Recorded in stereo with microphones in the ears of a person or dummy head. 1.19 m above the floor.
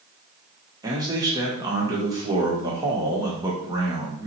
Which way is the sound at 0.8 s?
20° right (ahead or behind).